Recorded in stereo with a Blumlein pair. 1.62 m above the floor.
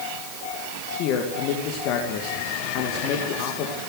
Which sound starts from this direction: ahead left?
A man speaking, at 1.0 s.